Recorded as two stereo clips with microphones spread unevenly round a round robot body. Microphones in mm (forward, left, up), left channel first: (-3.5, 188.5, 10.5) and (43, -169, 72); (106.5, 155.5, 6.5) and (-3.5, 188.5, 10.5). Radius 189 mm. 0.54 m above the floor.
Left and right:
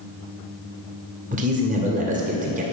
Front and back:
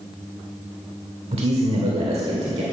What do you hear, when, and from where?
1.3 s a man speaking: 155° right, 1.9 m